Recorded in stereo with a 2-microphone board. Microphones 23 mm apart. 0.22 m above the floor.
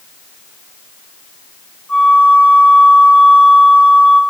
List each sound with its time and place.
1.9 s a flute: 75° left (ahead or behind), 6.5 m